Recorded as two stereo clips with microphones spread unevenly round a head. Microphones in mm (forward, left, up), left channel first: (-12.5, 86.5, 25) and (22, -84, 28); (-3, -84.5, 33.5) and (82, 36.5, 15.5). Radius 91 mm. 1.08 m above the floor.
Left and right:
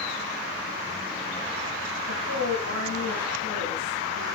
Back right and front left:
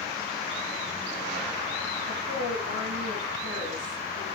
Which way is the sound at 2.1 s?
95° left.